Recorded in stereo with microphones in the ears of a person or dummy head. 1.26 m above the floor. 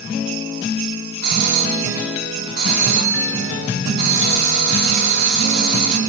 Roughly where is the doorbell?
Right.